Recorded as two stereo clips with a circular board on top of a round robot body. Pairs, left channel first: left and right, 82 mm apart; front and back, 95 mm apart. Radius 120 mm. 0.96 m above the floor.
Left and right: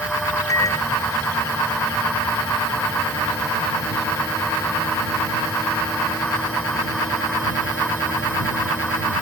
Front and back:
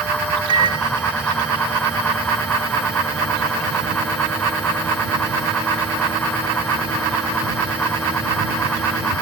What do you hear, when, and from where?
0.5 s a microwave: 140° left